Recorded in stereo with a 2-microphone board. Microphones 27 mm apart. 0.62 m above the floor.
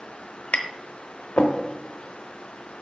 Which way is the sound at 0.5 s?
75° left (ahead or behind).